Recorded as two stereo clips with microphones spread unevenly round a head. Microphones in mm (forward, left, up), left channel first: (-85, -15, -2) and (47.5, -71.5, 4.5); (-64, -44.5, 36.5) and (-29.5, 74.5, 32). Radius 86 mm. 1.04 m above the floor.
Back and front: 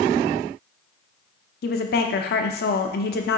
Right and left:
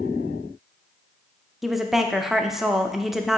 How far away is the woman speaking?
About 0.6 m.